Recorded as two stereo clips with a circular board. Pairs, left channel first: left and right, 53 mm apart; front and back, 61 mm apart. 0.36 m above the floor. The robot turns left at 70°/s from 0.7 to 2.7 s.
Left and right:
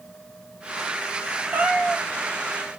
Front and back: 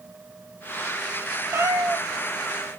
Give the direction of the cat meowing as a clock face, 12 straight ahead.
5 o'clock.